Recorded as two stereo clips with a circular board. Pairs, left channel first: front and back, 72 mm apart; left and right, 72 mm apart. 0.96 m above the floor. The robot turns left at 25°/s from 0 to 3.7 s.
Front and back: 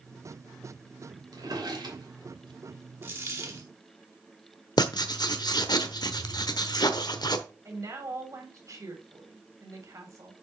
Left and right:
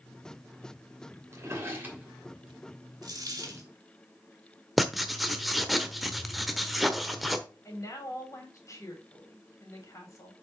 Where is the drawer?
145° right, 2.5 m; by 2.6 s 175° right, 2.5 m.